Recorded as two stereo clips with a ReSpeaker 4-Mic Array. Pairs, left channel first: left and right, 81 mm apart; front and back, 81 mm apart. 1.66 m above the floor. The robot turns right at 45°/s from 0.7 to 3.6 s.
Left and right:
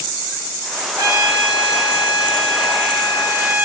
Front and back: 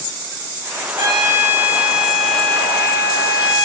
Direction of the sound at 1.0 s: 140° right.